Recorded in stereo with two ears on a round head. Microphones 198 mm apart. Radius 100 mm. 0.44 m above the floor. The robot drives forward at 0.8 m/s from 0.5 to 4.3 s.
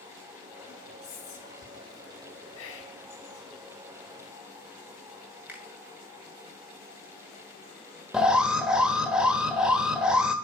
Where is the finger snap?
10° right (ahead or behind), 2.5 m.